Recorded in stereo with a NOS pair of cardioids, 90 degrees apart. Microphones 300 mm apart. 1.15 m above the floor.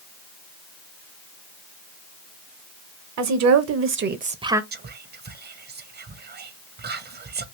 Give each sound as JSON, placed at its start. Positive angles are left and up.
{"t": 3.2, "sound": "a woman speaking", "azimuth_deg": -65, "distance_m": 1.0}
{"t": 4.7, "sound": "whispering", "azimuth_deg": -35, "distance_m": 0.7}